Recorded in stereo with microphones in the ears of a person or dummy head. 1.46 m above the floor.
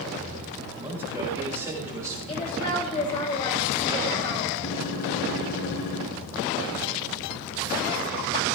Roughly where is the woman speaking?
Left.